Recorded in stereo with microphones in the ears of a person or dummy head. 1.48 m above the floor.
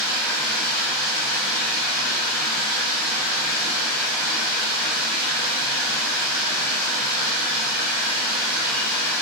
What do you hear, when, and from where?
0.0 s running water: 15° left (ahead or behind), 0.8 m